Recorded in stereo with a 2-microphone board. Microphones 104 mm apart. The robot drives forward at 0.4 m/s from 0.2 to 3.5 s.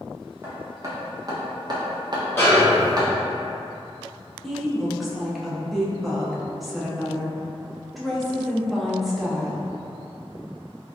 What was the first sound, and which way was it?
Hammering, 25° right (ahead or behind).